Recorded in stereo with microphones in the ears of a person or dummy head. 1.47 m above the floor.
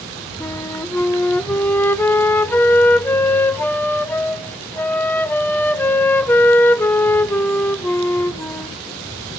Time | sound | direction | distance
0.4 | a flute | 10° left (ahead or behind) | 0.6 m